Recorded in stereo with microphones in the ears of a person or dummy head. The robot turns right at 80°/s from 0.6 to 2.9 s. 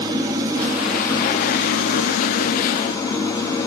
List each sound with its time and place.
0.0 s an engine running: 20° right, 0.9 m; by 3.7 s 160° left, 0.9 m